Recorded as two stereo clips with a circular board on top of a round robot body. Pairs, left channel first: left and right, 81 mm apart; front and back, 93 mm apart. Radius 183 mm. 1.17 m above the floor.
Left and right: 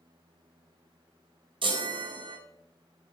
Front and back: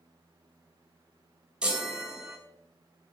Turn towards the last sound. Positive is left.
turn(degrees=-100)